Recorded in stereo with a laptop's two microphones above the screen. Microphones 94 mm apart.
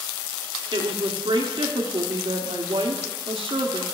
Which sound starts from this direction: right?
A woman speaking, at 0.7 s.